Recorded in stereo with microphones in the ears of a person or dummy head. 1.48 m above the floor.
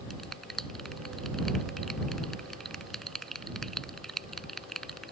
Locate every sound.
0.1 s a finger snap: centre (ahead or behind)